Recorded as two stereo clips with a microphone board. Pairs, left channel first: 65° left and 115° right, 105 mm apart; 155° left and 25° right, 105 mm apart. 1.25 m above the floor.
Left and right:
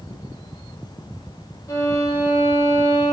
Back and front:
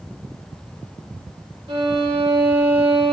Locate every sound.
1.7 s a violin: 10° left, 1.3 m